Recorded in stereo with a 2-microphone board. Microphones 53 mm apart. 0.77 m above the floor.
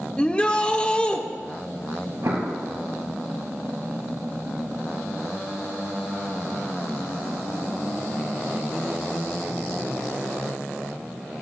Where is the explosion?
65° right (ahead or behind), 3 m.